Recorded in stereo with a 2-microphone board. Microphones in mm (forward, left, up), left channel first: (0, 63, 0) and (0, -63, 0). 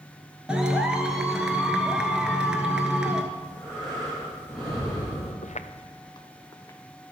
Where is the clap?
5° right (ahead or behind), 1.1 m.